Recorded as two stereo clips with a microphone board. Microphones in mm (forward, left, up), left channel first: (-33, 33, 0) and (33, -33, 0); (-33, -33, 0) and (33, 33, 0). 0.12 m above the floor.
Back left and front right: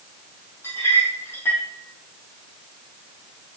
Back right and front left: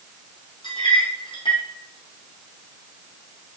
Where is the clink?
160° right, 2.5 m.